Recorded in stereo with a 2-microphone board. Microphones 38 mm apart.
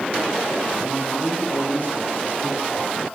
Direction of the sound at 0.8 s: 55° left (ahead or behind).